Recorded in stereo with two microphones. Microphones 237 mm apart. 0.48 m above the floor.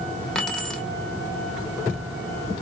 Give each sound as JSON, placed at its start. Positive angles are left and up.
{"t": 0.3, "sound": "keys jangling", "side_deg": 5, "distance_m": 1.0}